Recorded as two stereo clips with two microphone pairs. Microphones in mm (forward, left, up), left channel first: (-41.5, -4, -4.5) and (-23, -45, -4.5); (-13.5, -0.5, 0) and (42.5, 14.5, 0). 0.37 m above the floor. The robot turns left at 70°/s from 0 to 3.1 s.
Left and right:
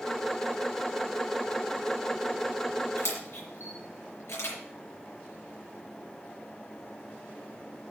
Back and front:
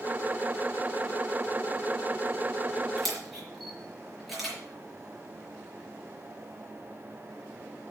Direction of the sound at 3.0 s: 110° left.